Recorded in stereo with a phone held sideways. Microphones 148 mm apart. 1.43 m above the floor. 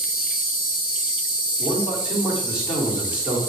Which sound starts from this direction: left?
An insect, at 0.0 s.